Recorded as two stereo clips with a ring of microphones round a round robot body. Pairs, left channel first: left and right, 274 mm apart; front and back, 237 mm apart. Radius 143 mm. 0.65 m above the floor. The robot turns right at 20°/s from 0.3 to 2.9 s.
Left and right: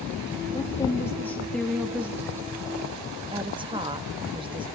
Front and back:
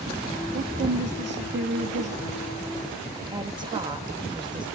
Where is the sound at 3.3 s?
135° right, 0.9 m.